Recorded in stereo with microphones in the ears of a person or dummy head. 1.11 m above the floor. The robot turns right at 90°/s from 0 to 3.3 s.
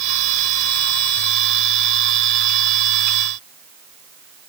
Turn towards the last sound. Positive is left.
No sound to turn to.